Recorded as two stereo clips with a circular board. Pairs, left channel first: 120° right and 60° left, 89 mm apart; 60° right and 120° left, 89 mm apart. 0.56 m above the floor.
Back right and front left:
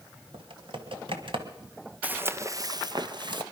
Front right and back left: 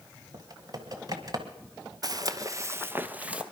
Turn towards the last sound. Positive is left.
turn(degrees=45)